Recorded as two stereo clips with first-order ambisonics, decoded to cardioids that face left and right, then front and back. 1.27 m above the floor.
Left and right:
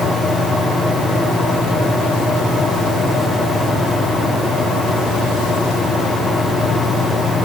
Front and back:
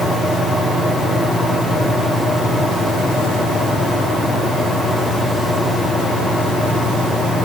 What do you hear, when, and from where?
Only background noise.